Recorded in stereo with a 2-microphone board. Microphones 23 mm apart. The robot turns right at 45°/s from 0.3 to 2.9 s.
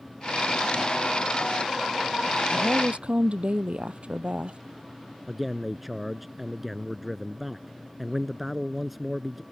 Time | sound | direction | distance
2.5 | a woman speaking | 70° right (ahead or behind) | ?
5.3 | a man speaking | 5° right (ahead or behind) | ?